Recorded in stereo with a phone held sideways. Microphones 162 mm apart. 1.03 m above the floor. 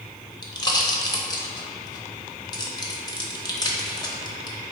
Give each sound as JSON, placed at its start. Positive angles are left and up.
{"t": 0.4, "sound": "a pop", "side_deg": 25, "distance_m": 0.6}